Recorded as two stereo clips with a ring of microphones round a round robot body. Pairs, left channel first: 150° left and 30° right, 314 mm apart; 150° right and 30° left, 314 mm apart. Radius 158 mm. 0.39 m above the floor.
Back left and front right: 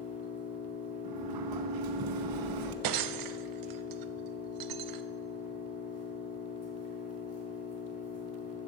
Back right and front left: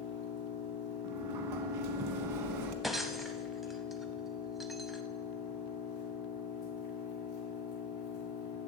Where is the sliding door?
5° right, 1.0 m.